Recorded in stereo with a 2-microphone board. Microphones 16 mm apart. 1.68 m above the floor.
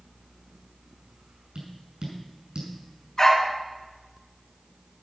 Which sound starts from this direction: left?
A dog barking, at 3.2 s.